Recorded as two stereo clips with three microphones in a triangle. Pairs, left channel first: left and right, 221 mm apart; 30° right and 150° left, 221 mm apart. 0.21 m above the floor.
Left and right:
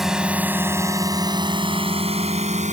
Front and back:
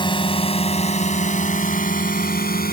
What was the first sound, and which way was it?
A drone, 5° right.